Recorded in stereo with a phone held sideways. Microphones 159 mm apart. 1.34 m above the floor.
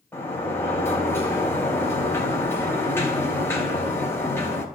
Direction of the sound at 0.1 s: 15° left (ahead or behind).